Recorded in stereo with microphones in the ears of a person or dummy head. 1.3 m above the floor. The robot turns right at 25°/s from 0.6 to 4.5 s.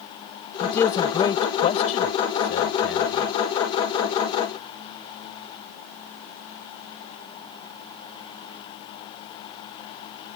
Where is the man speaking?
5° left (ahead or behind); by 3.3 s 75° left (ahead or behind).